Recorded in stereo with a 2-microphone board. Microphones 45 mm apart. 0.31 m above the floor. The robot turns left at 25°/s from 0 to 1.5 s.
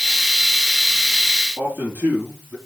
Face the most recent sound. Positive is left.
turn(degrees=-50)  # may be behind; listen again after turning